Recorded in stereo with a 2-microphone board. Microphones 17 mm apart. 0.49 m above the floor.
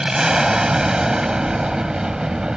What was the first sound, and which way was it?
An aircraft, 40° right (ahead or behind).